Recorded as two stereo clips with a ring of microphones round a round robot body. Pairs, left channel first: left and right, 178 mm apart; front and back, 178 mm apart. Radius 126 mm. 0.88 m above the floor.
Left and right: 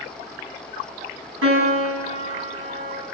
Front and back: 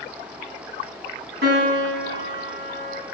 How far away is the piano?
About 7 m.